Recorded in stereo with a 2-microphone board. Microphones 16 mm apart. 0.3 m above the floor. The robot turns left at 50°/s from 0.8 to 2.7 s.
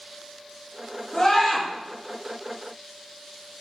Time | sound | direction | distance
1.1 | a scream | 45° left (ahead or behind) | 5 m